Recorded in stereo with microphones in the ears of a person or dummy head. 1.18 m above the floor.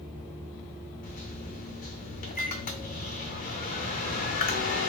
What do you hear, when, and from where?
1.0 s a microwave: 45° left (ahead or behind), 0.6 m